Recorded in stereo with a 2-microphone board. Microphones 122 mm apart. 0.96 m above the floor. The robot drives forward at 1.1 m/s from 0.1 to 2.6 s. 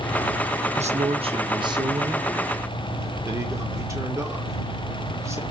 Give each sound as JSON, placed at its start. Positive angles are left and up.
{"t": 0.8, "sound": "a man speaking", "side_deg": -65, "distance_m": 1.1}